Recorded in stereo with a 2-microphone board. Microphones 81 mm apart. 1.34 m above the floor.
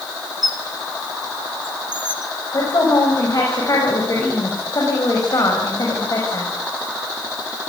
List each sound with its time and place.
0.4 s a squeak: 65° right (ahead or behind), 1.6 m
2.5 s a woman speaking: 45° left (ahead or behind), 6 m